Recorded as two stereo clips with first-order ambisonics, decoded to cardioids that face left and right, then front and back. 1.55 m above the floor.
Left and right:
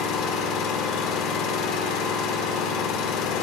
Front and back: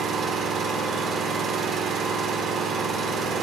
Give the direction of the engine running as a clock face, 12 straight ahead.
8 o'clock.